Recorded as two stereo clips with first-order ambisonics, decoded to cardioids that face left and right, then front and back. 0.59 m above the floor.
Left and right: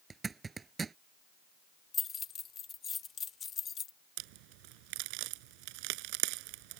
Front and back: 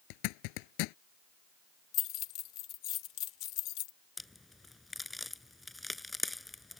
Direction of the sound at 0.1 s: 15° right.